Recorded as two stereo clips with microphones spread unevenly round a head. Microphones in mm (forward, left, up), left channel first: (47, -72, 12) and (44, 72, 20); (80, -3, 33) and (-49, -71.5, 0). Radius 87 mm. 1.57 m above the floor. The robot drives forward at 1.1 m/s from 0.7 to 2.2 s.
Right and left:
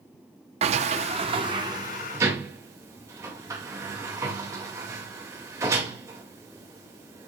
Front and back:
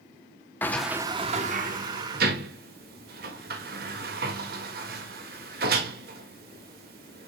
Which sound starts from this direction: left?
A sliding door, at 0.6 s.